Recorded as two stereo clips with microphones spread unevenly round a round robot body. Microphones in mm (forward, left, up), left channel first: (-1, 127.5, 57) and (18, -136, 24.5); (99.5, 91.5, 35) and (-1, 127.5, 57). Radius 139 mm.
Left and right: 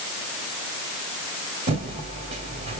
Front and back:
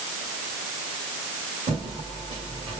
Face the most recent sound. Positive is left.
turn(degrees=-145)